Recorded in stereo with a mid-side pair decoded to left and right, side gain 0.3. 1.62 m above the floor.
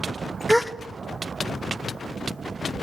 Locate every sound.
0.5 s a gasp: straight ahead, 1.0 m